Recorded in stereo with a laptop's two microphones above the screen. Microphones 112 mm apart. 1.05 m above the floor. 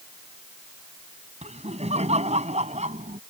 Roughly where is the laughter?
Right.